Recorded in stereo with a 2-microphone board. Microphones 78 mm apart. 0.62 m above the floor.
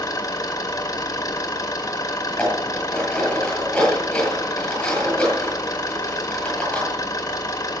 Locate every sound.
0.0 s an engine running: 50° left (ahead or behind), 2.0 m
2.3 s dishes clattering: 10° left (ahead or behind), 8.5 m